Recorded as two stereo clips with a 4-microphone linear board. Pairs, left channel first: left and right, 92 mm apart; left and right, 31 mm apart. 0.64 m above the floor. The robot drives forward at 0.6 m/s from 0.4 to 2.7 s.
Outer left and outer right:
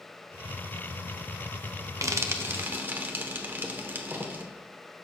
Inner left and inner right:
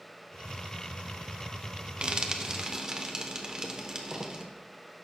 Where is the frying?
35° right (ahead or behind), 0.6 m; by 4.4 s 20° right (ahead or behind), 1.0 m.